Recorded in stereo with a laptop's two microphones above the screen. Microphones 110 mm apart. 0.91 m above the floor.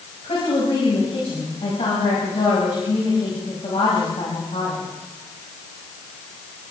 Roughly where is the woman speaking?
Left.